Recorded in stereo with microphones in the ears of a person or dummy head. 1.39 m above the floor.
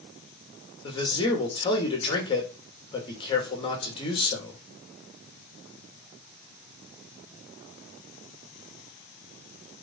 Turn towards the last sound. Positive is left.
turn(degrees=25)  # may be behind; listen again after turning